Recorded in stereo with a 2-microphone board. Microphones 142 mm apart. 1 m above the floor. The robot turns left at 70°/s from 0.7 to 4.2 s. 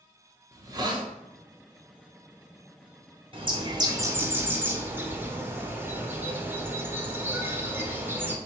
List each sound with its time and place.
0.5 s a hiss: 25° right (ahead or behind), 0.6 m; by 1.1 s 35° right (ahead or behind), 0.6 m
3.3 s a bird: 95° right, 0.6 m; by 8.4 s 155° right, 0.6 m